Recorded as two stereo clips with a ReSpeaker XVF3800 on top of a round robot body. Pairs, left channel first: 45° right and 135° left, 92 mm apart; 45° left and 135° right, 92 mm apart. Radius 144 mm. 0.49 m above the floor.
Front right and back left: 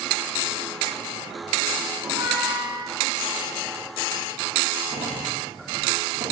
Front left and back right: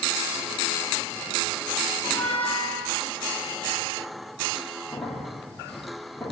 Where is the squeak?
115° left, 5.5 m.